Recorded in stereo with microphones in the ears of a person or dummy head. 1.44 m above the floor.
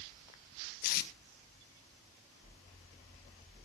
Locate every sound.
0.8 s tape being pulled: 50° left (ahead or behind), 1.6 m